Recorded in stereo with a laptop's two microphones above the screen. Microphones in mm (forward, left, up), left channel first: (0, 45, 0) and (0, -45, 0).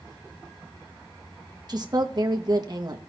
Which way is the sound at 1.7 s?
45° right (ahead or behind).